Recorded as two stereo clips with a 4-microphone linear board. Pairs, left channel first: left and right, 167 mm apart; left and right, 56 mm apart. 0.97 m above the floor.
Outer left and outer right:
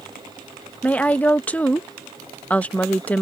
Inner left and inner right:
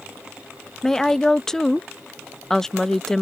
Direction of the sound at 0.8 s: 10° left (ahead or behind).